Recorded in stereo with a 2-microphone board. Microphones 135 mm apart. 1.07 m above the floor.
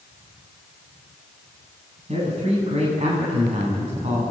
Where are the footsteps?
I don't hear footsteps.